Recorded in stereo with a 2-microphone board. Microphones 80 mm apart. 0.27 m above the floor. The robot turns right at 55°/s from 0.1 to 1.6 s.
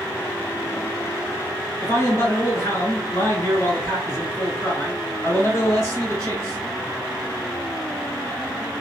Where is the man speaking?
35° left (ahead or behind), 1.5 m.